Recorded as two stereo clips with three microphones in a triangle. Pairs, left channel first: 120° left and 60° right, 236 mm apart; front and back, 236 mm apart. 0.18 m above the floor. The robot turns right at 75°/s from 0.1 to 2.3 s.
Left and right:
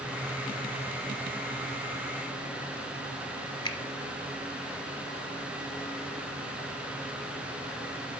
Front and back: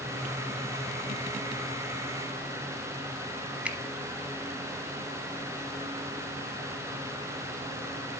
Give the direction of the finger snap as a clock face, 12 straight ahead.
8 o'clock.